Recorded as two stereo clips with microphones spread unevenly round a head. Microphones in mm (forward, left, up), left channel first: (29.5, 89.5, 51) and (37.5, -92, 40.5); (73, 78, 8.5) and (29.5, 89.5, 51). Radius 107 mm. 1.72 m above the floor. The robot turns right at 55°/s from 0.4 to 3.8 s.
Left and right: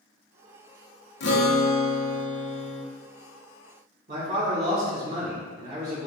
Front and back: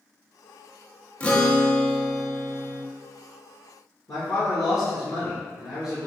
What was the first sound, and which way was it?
A guitar, 75° left.